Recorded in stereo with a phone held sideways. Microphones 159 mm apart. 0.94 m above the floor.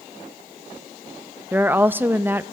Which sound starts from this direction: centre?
A woman speaking, at 1.5 s.